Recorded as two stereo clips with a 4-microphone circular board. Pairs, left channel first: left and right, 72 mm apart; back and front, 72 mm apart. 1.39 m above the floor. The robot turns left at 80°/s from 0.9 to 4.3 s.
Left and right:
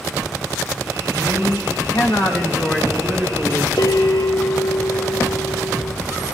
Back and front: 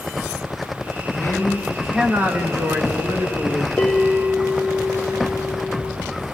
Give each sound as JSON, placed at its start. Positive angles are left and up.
{"t": 1.1, "sound": "a man speaking", "azimuth_deg": 140, "distance_m": 1.8}
{"t": 3.8, "sound": "a bell", "azimuth_deg": 110, "distance_m": 0.8}